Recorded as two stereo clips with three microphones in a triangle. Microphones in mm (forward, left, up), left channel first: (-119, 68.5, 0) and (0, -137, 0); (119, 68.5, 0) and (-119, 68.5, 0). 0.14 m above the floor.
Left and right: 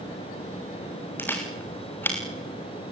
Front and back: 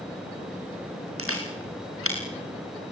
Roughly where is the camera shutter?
Behind.